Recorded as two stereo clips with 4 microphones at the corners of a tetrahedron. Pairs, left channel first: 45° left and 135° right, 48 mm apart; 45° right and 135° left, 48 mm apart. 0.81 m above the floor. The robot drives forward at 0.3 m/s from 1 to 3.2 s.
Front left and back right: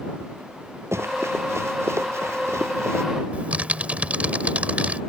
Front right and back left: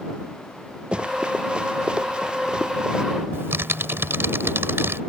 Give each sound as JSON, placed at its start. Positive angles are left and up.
{"t": 0.9, "sound": "running footsteps", "azimuth_deg": -155}
{"t": 3.3, "sound": "typing on a keyboard", "azimuth_deg": 165}